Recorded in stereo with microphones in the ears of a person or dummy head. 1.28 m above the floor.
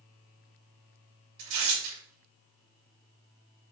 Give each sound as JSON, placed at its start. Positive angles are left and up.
{"t": 1.4, "sound": "tearing paper", "side_deg": -55, "distance_m": 2.0}